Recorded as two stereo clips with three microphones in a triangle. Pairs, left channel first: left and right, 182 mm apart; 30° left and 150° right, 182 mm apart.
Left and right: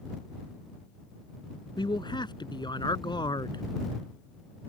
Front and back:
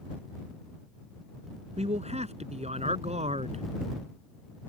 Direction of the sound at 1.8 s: 155° left.